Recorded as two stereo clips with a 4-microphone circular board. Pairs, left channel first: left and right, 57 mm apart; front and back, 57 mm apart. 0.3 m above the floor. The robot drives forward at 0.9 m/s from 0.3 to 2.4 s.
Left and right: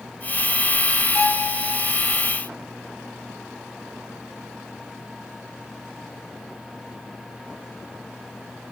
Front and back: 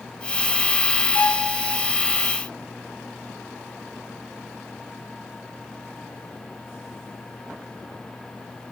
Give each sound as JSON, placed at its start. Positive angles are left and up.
{"t": 1.1, "sound": "a violin", "azimuth_deg": 55, "distance_m": 1.3}